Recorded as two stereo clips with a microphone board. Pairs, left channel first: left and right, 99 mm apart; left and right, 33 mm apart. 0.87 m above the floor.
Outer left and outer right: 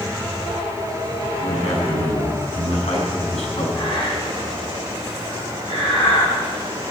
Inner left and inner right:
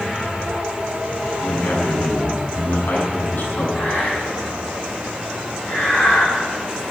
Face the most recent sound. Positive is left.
turn(degrees=55)  # may be behind; listen again after turning